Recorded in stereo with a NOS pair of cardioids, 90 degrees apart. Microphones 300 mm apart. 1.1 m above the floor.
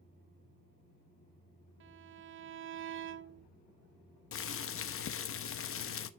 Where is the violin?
45° right, 0.5 m.